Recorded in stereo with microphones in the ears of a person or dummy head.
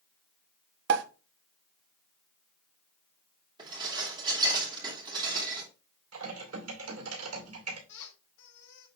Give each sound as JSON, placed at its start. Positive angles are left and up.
{"t": 0.9, "sound": "a pop", "side_deg": -70, "distance_m": 0.9}
{"t": 3.6, "sound": "dishes clattering", "side_deg": -35, "distance_m": 2.5}
{"t": 6.1, "sound": "typing on a keyboard", "side_deg": -80, "distance_m": 2.5}
{"t": 7.9, "sound": "a squeak", "side_deg": 60, "distance_m": 3.5}